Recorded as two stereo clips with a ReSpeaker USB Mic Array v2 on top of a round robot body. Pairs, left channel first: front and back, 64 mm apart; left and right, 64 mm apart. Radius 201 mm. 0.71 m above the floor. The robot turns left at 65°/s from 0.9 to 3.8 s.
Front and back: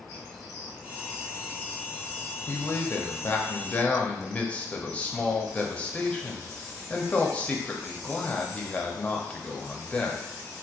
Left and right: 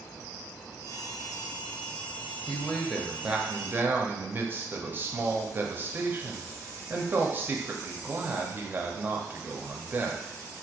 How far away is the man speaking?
About 1.0 m.